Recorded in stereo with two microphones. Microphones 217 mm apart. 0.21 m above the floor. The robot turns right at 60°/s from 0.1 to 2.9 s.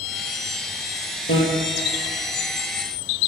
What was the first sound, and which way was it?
A bicycle bell, 75° left (ahead or behind).